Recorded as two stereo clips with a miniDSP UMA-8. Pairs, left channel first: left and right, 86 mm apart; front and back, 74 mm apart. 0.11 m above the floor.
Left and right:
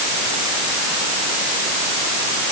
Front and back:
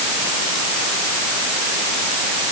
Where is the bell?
I don't hear a bell.